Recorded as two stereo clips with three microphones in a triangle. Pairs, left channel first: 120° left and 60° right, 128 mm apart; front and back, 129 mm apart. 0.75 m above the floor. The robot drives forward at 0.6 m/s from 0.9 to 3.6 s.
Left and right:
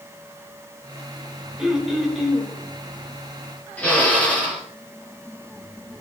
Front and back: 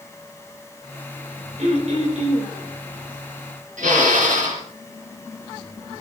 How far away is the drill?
About 5 m.